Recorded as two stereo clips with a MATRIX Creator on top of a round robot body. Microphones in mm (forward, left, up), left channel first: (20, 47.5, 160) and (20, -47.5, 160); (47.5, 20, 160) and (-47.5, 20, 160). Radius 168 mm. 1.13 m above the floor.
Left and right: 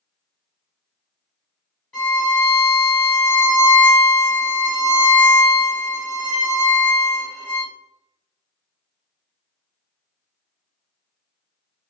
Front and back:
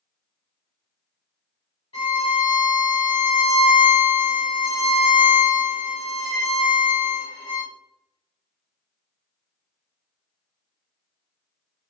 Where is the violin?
15° left, 0.9 m.